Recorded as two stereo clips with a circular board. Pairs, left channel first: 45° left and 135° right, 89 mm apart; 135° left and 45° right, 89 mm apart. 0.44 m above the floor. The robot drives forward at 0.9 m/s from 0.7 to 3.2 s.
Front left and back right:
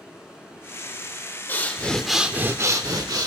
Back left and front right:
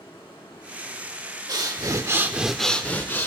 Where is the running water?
145° left, 3.5 m; by 3.3 s 160° left, 5.5 m.